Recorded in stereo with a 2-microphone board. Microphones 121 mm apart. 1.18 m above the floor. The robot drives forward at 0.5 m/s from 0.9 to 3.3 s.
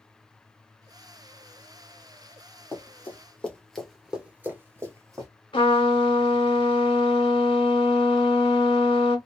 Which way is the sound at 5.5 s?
40° left (ahead or behind).